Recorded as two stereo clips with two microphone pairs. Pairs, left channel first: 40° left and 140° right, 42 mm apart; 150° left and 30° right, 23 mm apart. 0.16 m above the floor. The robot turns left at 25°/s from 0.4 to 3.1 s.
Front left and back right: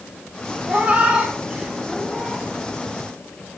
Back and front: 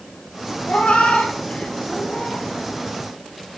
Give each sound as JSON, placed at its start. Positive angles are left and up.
{"t": 0.7, "sound": "a cat meowing", "azimuth_deg": 165, "distance_m": 2.0}